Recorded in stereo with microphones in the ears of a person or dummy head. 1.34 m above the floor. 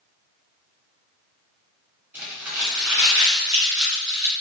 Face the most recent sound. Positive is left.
turn(degrees=-5)  # may be behind; listen again after turning